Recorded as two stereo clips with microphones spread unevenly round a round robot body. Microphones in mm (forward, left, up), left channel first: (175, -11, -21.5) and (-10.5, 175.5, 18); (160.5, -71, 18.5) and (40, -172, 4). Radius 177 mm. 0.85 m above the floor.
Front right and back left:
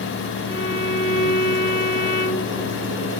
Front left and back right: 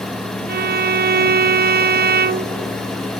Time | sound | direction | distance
0.5 | a violin | 115° right | ?